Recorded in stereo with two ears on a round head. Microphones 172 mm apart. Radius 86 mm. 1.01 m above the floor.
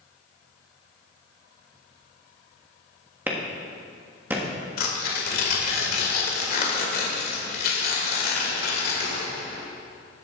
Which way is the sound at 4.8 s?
55° left (ahead or behind).